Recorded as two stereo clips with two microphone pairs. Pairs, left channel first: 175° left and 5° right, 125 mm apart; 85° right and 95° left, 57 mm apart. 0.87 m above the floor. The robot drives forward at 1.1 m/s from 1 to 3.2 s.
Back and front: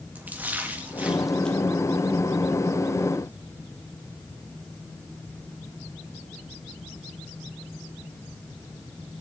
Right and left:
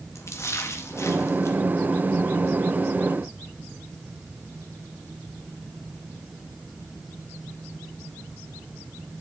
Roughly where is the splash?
Right.